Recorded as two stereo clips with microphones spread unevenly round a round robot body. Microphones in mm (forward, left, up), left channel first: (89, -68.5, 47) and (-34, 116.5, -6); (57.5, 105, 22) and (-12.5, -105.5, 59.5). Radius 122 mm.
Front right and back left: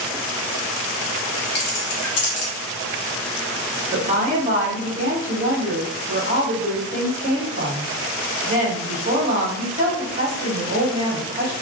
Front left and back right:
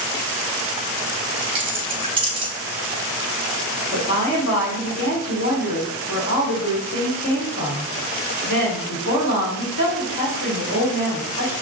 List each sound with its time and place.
1.6 s keys jangling: 45° right, 0.8 m
3.9 s a woman speaking: 85° left, 1.3 m